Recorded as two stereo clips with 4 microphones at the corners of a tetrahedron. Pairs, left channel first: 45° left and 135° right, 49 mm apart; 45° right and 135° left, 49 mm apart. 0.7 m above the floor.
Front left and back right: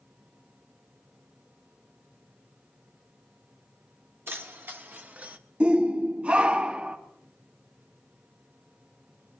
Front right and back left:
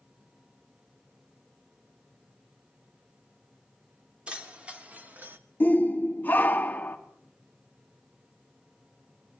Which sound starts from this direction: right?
A shout, at 5.6 s.